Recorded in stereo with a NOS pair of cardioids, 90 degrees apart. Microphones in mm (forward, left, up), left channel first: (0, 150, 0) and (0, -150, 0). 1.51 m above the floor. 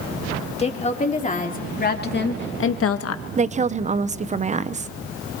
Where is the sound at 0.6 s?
20° left, 4 m; by 3.2 s 65° left, 1.3 m.